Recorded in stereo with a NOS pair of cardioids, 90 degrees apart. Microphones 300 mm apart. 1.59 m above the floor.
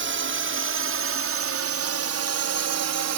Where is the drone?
40° right; by 3.2 s 70° right.